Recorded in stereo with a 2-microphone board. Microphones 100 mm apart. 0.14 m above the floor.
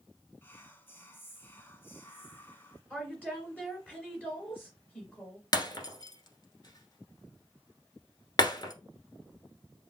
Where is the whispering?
20° left (ahead or behind), 1.0 m.